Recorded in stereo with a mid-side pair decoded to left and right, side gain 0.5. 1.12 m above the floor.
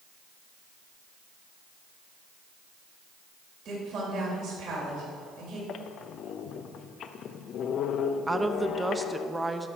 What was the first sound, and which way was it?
A woman speaking, 60° right.